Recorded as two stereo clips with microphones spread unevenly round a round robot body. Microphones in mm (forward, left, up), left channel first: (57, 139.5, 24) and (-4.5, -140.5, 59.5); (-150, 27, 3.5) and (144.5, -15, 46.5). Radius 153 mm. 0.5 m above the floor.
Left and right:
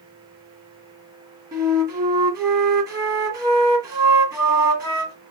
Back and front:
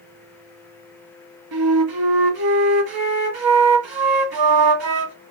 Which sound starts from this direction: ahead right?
A flute, at 1.5 s.